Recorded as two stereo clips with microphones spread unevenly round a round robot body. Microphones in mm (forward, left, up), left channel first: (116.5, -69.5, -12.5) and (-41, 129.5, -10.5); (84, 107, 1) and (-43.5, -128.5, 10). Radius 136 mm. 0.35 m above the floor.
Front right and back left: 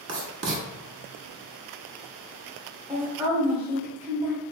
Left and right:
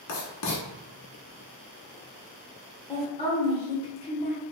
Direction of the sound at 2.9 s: 60° left.